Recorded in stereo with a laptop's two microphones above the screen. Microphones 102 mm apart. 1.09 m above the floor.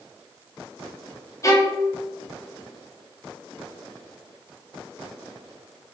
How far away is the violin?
About 0.6 m.